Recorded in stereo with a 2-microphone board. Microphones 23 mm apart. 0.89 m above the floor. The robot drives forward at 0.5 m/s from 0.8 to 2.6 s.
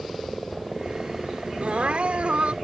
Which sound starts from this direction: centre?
A helicopter, at 0.0 s.